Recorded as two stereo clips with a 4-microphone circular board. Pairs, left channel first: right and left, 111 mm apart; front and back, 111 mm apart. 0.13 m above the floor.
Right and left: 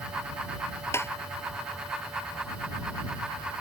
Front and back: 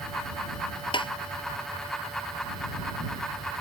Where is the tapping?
30° right.